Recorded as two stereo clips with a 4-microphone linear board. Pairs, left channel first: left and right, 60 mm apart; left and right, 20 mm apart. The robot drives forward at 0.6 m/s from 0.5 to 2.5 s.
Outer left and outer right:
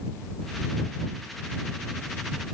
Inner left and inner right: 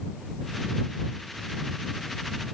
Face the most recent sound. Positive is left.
No sound to turn to.